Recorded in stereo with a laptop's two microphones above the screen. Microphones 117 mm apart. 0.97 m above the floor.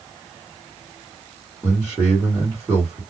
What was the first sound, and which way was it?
A man speaking, 5° right (ahead or behind).